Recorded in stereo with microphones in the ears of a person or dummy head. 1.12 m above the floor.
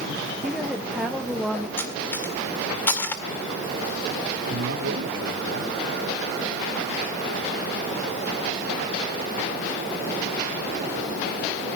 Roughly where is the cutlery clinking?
Centre.